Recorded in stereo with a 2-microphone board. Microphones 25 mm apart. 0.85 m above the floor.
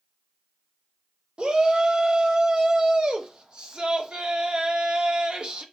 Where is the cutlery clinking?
I don't hear cutlery clinking.